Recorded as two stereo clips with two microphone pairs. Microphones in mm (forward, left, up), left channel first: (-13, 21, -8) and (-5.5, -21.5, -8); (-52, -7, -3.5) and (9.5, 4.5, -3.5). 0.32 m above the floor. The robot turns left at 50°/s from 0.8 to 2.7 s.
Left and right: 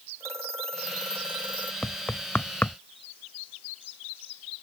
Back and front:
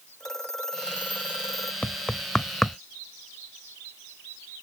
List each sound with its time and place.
0.2 s a phone ringing: 85° right; by 1.7 s 130° right
1.8 s knocking: 145° left; by 2.8 s 100° left